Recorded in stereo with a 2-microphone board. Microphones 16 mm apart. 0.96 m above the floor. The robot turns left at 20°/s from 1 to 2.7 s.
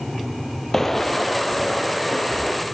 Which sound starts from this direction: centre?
Footsteps, at 0.7 s.